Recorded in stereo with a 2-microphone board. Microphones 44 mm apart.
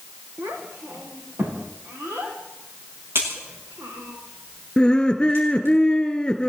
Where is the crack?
65° right (ahead or behind), 9 m.